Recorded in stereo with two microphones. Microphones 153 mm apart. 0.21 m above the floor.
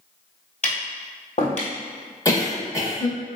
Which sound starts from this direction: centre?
A cough, at 2.2 s.